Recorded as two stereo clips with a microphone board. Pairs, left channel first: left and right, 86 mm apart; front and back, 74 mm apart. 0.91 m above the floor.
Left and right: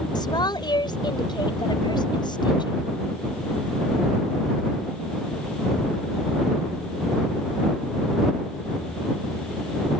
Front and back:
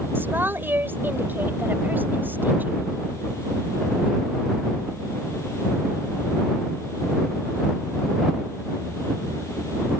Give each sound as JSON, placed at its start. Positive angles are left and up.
{"t": 0.1, "sound": "a woman speaking", "azimuth_deg": 120}